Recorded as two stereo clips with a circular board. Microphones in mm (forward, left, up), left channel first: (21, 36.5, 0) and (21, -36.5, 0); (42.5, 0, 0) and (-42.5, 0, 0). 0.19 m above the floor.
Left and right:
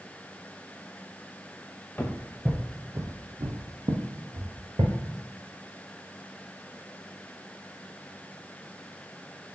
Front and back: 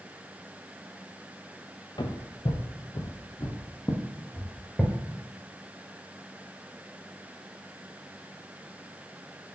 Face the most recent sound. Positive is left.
turn(degrees=-85)